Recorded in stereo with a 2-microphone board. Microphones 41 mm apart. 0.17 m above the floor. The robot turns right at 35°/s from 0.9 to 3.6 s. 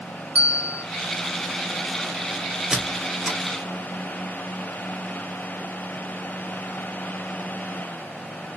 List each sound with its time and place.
0.3 s a bell: 30° right (ahead or behind), 0.7 m
2.7 s a squeak: 15° right (ahead or behind), 0.7 m; by 3.4 s 10° left (ahead or behind), 0.7 m